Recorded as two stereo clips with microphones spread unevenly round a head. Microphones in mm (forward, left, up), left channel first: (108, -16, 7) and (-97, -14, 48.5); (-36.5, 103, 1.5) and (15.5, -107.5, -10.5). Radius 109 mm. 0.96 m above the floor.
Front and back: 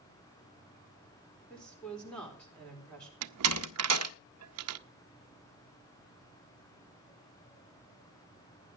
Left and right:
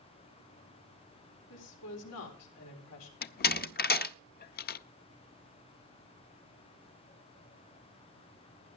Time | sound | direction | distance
1.5 | a woman speaking | 85° left | 4 m
3.2 | a door slam | 155° left | 0.5 m